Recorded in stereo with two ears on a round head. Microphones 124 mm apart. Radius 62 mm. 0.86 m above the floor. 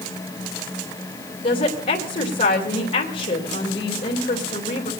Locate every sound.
1.4 s a woman speaking: 50° left (ahead or behind), 3 m